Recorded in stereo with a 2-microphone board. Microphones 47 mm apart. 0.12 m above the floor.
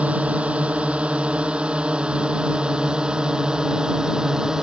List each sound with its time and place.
0.0 s a drone: 25° right (ahead or behind); by 4.6 s 15° right (ahead or behind)